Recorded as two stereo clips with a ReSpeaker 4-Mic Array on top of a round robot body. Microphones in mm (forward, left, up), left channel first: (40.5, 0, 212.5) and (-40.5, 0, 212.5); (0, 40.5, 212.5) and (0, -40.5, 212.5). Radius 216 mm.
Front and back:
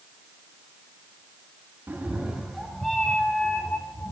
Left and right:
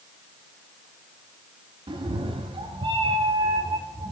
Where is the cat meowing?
110° right, 1.0 m; by 4.1 s 70° right, 1.8 m.